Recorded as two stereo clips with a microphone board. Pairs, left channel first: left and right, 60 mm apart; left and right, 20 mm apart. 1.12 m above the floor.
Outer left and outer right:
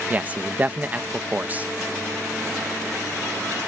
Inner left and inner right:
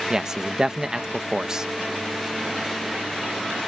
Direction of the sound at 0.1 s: 25° right (ahead or behind).